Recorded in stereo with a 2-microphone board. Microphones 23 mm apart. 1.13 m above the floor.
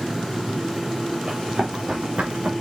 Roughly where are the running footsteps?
Right.